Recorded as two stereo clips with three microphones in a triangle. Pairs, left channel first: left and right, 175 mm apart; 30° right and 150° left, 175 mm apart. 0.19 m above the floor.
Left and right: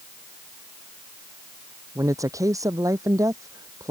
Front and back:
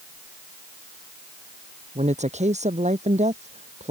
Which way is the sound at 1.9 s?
160° right.